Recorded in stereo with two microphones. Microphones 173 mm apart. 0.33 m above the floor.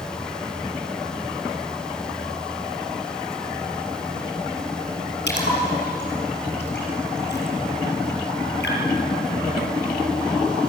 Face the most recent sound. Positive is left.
turn(degrees=80)